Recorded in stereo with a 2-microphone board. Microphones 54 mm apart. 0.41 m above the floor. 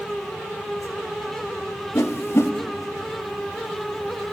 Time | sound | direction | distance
1.9 | a whoosh | 60° left (ahead or behind) | 0.8 m